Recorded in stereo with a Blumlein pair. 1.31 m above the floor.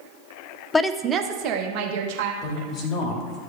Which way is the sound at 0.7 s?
15° left.